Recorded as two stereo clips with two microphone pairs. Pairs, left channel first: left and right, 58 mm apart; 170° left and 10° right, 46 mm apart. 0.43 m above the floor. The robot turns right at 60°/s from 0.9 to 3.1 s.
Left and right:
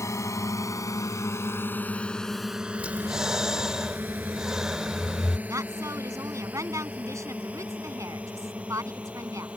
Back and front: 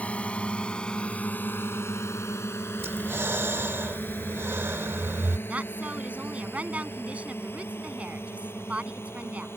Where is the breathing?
30° right; by 5.4 s 10° right.